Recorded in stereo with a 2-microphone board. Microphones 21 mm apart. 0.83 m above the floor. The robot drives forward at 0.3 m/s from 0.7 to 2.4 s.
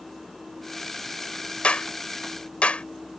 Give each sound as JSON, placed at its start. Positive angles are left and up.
{"t": 1.6, "sound": "a clap", "side_deg": 70}